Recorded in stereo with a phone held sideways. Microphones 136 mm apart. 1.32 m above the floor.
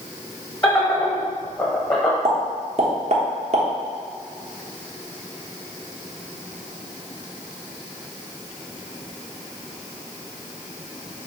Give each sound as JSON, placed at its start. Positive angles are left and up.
{"t": 0.6, "sound": "laughter", "side_deg": 25, "distance_m": 1.0}
{"t": 2.2, "sound": "a pop", "side_deg": -55, "distance_m": 0.9}